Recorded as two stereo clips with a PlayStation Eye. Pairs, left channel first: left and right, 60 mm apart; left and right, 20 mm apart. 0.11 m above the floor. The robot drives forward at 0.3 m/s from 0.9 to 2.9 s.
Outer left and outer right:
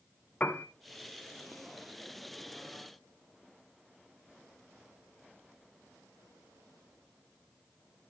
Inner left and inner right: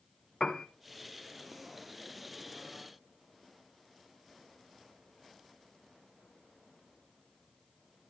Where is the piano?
25° left (ahead or behind), 0.9 m.